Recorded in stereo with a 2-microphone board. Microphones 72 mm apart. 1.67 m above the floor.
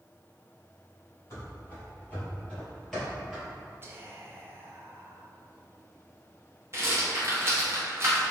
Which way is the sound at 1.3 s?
35° left (ahead or behind).